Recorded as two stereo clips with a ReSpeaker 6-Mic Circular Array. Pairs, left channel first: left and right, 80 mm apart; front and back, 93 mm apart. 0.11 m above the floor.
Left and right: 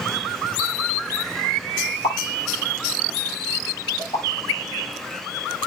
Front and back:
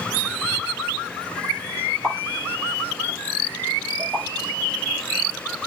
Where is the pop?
90° left, 7 m.